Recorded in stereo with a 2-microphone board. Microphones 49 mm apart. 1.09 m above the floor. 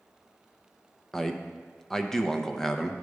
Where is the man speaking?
10° left (ahead or behind), 0.7 m.